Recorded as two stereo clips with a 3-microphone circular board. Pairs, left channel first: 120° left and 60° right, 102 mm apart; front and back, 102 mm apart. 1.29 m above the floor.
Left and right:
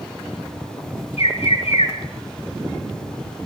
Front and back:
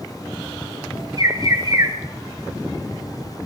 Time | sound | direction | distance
1.2 | a bird | 130° left | 5 m